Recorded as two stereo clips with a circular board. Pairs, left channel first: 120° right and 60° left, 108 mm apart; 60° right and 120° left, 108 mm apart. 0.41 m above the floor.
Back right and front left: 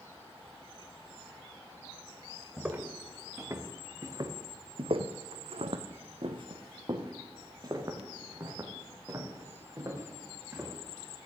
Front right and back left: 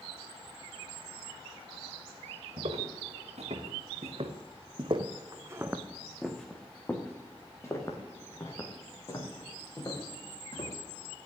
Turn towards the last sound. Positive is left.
turn(degrees=-10)